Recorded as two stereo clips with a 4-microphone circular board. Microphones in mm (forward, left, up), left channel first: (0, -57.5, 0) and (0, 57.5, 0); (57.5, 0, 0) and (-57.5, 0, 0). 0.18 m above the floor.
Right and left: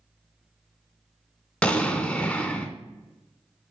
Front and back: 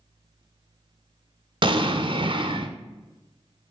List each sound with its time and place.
1.6 s an explosion: 165° right, 0.7 m